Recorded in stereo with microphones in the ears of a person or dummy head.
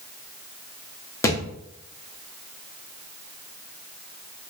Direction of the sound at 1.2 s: 15° left (ahead or behind).